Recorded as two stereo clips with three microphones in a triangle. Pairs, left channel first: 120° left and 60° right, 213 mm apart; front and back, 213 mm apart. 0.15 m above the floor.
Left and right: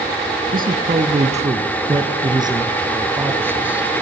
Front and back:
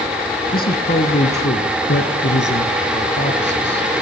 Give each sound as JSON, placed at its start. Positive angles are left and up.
{"t": 0.5, "sound": "a man speaking", "azimuth_deg": -30, "distance_m": 2.0}